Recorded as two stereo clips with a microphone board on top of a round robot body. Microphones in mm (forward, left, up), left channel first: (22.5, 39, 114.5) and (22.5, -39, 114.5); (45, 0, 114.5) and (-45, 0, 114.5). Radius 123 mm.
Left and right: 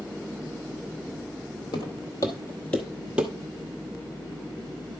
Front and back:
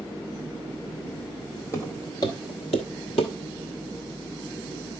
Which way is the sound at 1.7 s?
60° left.